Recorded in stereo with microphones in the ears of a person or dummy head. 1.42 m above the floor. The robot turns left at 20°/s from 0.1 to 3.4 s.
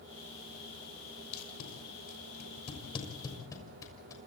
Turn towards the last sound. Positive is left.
turn(degrees=20)  # may be behind; listen again after turning